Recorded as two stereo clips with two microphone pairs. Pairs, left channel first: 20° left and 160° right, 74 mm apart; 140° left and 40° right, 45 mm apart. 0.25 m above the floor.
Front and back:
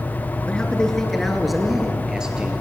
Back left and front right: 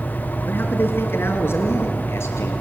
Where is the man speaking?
100° left, 3 m; by 2.5 s 125° left, 4 m.